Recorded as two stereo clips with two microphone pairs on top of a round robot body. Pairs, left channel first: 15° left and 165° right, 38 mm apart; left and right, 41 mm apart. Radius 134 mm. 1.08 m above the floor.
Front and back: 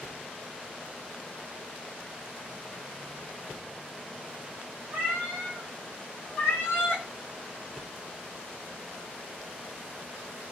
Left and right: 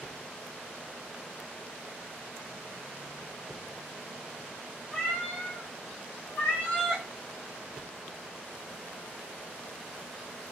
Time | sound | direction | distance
4.9 | a cat meowing | 155° left | 2 m